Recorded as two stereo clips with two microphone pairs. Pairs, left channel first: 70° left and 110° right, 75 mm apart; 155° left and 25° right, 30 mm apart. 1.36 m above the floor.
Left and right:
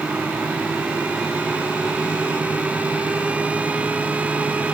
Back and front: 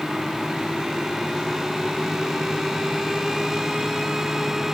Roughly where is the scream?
I don't hear a scream.